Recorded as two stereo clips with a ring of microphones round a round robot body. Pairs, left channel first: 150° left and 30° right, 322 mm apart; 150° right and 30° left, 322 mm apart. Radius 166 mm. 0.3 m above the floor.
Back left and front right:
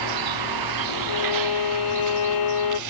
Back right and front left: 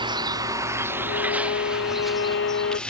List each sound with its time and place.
0.0 s a vehicle: 45° right; by 2.9 s 65° right
1.1 s a violin: 155° left